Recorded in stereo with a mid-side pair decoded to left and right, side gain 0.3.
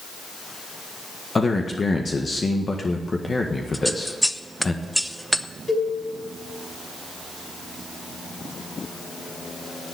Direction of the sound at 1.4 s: 40° left.